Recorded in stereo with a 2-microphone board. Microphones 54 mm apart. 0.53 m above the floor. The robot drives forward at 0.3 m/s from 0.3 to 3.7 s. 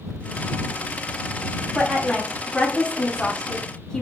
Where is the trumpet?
No trumpet in this recording.